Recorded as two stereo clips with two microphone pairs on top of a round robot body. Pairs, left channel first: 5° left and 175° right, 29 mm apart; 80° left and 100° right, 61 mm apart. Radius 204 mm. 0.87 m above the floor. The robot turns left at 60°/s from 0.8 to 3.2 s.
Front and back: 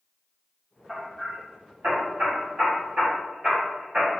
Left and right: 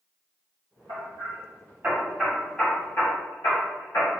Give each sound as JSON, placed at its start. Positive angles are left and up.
{"t": 0.9, "sound": "hammering", "azimuth_deg": -100, "distance_m": 1.4}